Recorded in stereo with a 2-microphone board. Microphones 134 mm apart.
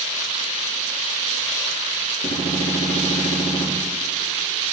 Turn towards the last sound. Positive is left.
turn(degrees=85)